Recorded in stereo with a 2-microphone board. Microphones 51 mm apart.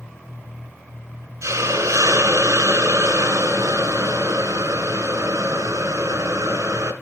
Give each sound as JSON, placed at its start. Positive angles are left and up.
{"t": 1.4, "sound": "a hiss", "side_deg": -75, "distance_m": 2.5}